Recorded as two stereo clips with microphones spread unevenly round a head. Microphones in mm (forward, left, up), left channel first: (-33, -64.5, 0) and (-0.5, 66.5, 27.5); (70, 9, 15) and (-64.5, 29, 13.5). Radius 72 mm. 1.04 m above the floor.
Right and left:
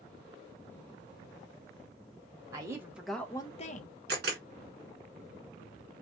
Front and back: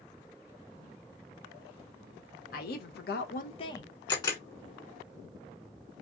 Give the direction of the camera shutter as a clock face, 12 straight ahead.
10 o'clock.